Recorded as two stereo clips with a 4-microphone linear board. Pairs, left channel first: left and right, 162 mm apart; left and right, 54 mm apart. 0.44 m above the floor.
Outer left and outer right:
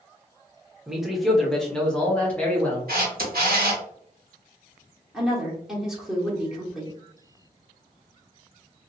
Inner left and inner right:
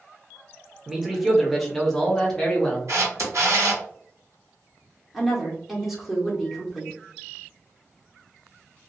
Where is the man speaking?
5° right (ahead or behind), 0.8 m; by 2.8 s 10° left (ahead or behind), 1.5 m.